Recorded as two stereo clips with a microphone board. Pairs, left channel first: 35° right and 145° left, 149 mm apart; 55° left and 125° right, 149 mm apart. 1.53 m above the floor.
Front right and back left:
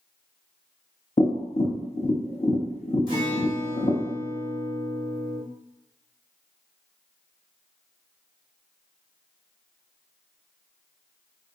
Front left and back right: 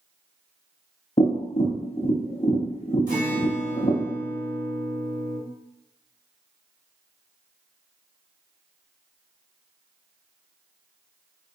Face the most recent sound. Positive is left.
turn(degrees=-155)